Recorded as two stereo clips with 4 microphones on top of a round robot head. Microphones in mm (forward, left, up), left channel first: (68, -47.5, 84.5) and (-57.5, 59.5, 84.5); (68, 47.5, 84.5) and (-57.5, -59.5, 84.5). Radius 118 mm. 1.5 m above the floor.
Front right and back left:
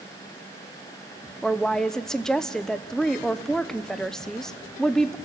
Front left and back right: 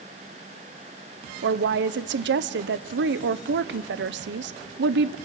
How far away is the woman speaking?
About 0.8 m.